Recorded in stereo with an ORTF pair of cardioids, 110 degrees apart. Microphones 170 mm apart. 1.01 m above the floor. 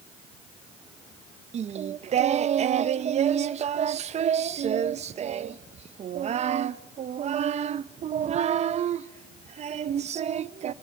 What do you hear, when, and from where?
1.5 s singing: 40° right, 0.7 m